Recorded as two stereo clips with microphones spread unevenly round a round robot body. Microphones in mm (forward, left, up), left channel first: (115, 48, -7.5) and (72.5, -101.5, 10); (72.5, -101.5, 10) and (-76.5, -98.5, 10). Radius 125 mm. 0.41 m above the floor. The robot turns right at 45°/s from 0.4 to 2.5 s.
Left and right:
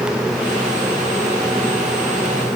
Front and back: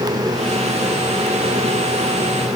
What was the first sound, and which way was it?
Only background noise.